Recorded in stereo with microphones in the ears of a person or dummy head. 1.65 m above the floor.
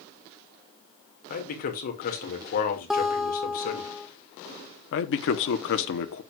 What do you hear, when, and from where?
1.3 s a man speaking: 50° left (ahead or behind), 2 m
2.9 s a guitar: 5° right (ahead or behind), 0.9 m
4.9 s a man speaking: 60° left (ahead or behind), 0.9 m